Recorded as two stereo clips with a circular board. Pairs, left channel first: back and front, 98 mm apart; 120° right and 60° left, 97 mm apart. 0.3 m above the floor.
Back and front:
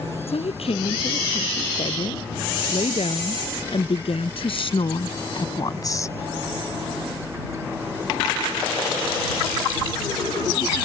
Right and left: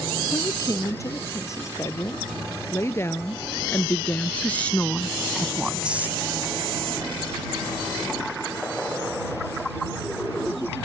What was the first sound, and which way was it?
A woman speaking, 175° right.